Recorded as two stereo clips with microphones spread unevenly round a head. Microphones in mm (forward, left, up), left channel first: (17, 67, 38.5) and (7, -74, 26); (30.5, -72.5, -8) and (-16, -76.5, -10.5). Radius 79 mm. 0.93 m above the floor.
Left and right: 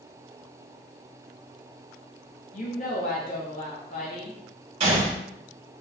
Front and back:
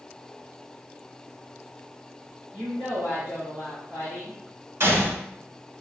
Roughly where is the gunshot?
Behind right.